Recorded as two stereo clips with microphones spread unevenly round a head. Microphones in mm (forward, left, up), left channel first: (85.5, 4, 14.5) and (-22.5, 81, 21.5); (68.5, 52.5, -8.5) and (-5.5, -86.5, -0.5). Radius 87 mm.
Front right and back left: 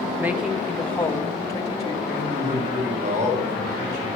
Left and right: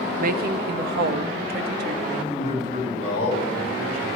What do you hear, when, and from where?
0.2 s a woman speaking: 140° right, 0.7 m; by 1.9 s 100° right, 1.5 m
2.0 s a man speaking: 120° left, 5.5 m